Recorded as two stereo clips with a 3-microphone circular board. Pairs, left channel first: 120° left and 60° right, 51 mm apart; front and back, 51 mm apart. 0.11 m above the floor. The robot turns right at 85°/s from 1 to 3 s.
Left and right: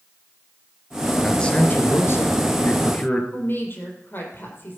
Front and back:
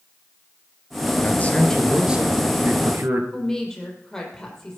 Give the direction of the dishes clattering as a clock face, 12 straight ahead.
No dishes clattering in this recording.